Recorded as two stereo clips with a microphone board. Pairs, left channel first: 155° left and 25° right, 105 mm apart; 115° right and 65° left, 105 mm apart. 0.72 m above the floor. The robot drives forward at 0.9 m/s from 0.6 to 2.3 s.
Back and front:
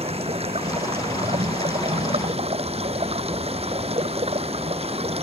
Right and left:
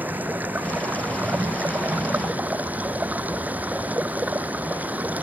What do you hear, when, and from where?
0.0 s running water: 5° right; by 5.2 s 10° right